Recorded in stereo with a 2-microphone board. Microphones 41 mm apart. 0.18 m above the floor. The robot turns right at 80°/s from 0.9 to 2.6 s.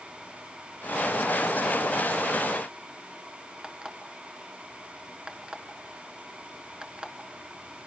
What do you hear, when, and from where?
3.6 s an alarm clock: 20° right (ahead or behind), 1.6 m